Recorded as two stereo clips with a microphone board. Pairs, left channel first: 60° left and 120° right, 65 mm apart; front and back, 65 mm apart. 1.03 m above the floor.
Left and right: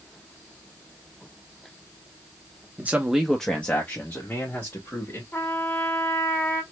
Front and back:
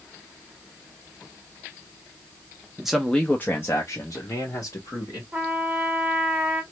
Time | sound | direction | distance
2.8 | a man speaking | 110° right | 0.7 m
5.3 | a trumpet | 110° left | 1.0 m